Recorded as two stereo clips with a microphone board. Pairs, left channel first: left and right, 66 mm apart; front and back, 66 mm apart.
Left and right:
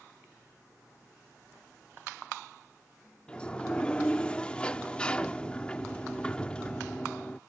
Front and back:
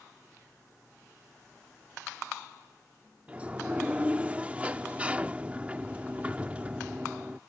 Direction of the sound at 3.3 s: 140° left.